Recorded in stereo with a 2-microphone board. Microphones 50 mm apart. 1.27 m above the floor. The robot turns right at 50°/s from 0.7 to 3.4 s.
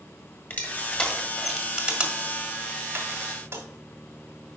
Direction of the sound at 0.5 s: 40° left (ahead or behind).